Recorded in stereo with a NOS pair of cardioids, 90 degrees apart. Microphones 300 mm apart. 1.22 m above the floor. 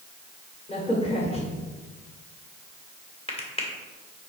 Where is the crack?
20° left, 2.5 m.